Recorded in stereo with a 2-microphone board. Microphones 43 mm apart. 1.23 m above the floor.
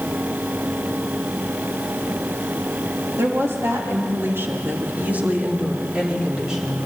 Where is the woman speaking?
70° right (ahead or behind), 3 m; by 6.9 s 10° right (ahead or behind), 4.5 m.